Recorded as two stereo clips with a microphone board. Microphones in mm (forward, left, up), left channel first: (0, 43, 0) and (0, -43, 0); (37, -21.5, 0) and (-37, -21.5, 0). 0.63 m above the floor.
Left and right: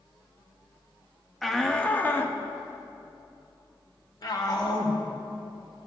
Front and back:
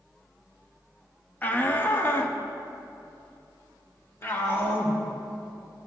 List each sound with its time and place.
1.4 s a shout: straight ahead, 1.0 m; by 5.0 s 55° left, 2.5 m